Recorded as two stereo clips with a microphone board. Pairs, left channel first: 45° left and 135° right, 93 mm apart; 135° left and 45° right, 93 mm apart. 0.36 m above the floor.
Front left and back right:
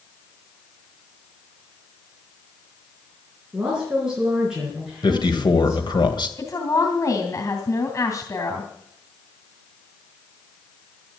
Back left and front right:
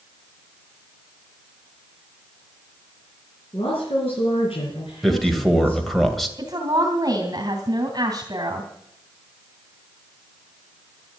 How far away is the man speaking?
About 2 m.